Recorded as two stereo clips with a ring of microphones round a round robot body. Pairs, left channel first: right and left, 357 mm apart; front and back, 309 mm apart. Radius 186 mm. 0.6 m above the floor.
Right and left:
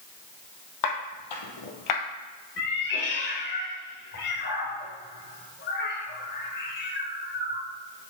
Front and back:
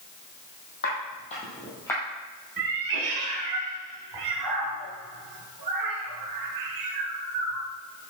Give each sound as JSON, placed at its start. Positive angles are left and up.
{"t": 0.8, "sound": "footsteps", "azimuth_deg": -65, "distance_m": 1.7}
{"t": 2.6, "sound": "a cat meowing", "azimuth_deg": -150, "distance_m": 1.3}